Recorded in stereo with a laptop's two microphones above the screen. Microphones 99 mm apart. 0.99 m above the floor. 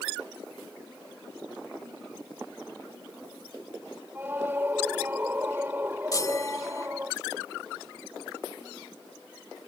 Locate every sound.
4.2 s a scream: 20° right (ahead or behind)
6.1 s a chime: 35° left (ahead or behind)